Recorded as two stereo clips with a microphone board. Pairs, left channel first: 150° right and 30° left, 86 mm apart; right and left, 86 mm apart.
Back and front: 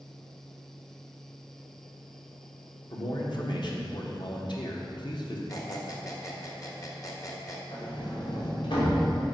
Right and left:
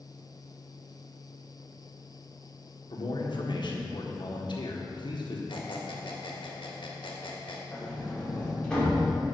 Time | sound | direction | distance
2.9 | a man speaking | 115° right | 1.4 m
5.5 | a squeak | 100° right | 1.3 m
7.7 | a sliding door | 170° right | 2.5 m